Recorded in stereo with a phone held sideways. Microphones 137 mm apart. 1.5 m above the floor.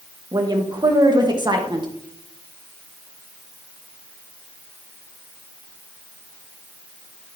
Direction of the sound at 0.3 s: 30° right (ahead or behind).